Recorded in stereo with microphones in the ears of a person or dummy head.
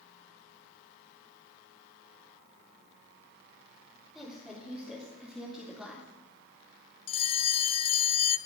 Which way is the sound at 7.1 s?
30° left (ahead or behind).